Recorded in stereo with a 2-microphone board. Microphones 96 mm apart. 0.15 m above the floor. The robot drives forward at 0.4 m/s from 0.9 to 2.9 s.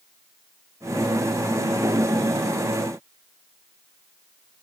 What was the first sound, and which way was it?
Only background noise.